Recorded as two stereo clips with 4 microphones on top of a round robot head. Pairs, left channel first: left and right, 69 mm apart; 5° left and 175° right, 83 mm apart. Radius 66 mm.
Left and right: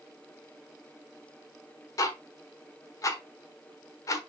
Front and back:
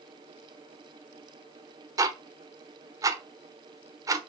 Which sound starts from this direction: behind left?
Ticking, at 2.0 s.